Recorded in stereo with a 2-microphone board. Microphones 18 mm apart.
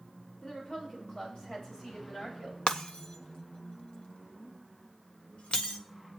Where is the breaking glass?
75° left (ahead or behind), 0.9 m.